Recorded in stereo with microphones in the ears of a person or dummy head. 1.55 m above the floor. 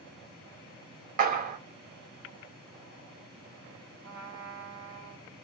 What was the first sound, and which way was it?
A clap, 35° right (ahead or behind).